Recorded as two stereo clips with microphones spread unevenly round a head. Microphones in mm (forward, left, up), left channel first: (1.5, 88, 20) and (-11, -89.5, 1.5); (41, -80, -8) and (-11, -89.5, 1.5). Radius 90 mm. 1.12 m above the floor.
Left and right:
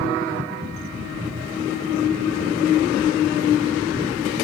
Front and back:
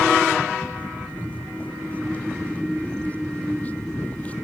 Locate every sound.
0.7 s footsteps: 55° right, 3 m; by 4.3 s 45° right, 1.2 m